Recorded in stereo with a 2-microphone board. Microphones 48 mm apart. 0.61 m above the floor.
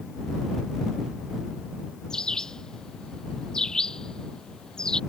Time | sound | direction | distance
2.1 | a bird | 15° left (ahead or behind) | ?